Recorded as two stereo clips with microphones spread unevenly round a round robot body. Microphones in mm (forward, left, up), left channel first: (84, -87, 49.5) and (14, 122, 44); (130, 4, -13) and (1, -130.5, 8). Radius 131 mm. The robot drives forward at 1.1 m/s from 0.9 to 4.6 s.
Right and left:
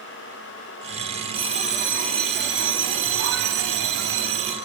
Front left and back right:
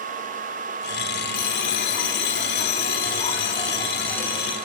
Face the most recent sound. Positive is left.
turn(degrees=140)